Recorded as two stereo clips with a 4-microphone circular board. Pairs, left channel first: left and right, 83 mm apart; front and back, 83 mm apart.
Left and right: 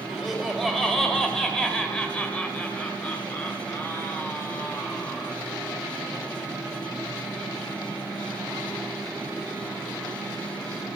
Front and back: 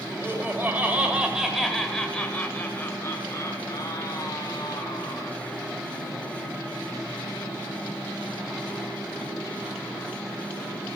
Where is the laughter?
175° right, 1.4 m; by 5.3 s 25° left, 2.5 m.